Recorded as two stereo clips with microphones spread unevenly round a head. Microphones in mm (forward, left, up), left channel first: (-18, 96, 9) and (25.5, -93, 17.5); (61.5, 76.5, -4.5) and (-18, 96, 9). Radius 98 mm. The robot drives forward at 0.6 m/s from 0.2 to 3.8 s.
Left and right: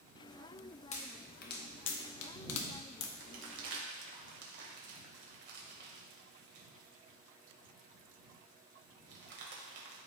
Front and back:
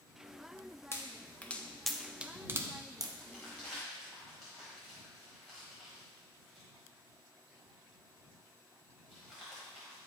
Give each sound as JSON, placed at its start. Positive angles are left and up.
{"t": 0.9, "sound": "a pop", "azimuth_deg": 45, "distance_m": 1.1}
{"t": 3.2, "sound": "crumpling", "azimuth_deg": -95, "distance_m": 1.6}